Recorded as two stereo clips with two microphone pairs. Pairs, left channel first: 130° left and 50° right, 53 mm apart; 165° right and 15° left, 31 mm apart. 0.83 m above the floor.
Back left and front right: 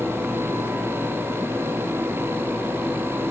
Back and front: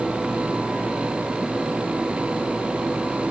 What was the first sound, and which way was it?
Only background noise.